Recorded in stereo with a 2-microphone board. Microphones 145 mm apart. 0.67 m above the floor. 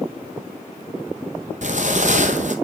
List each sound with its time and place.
1.6 s footsteps: 55° right (ahead or behind), 1.4 m